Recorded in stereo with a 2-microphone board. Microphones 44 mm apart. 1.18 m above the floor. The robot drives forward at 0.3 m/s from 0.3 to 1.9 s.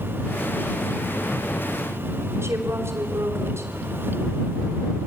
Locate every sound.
2.4 s a woman speaking: 70° right (ahead or behind), 4 m